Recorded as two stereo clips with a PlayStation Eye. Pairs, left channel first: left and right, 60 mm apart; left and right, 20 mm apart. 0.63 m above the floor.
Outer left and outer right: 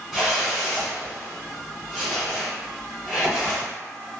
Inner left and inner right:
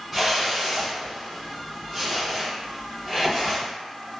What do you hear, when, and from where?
0.1 s a whoosh: 5° right (ahead or behind), 1.3 m